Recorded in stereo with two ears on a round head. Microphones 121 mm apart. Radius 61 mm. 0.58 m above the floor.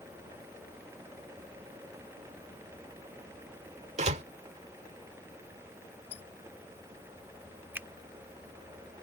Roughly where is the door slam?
Right.